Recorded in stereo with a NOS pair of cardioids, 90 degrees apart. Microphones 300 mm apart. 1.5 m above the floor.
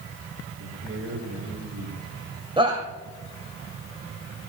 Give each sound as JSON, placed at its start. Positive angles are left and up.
{"t": 0.6, "sound": "a man speaking", "azimuth_deg": -45, "distance_m": 7.0}
{"t": 2.6, "sound": "a shout", "azimuth_deg": -20, "distance_m": 2.5}